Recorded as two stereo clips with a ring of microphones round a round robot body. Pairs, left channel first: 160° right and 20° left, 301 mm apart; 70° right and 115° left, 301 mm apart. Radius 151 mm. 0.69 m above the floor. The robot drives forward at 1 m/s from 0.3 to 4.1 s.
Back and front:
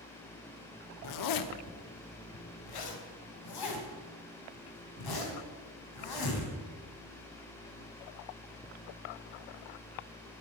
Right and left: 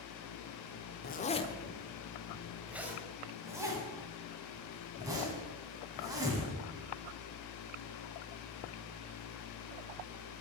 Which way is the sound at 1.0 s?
125° right.